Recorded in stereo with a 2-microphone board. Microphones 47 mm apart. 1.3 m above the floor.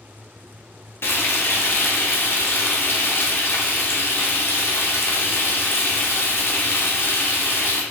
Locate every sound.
1.0 s frying: 55° left (ahead or behind), 0.7 m